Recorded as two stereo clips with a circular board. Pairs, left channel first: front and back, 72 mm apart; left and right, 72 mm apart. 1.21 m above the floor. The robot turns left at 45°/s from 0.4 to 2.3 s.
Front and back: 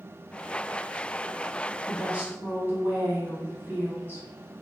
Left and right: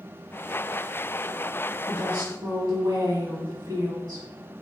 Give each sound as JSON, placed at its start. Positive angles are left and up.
{"t": 1.9, "sound": "a woman speaking", "azimuth_deg": -95, "distance_m": 1.3}